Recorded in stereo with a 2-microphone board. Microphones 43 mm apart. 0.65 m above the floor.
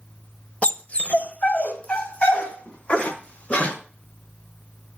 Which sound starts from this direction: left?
A dog barking, at 0.6 s.